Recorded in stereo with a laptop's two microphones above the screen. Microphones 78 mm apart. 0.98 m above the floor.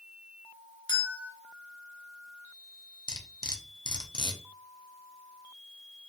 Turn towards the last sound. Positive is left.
turn(degrees=60)  # may be behind; listen again after turning